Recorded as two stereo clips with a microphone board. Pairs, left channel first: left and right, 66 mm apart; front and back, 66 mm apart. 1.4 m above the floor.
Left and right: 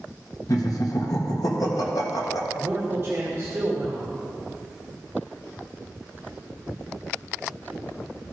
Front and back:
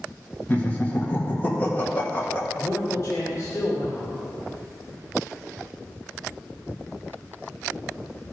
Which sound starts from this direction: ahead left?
Laughter, at 0.5 s.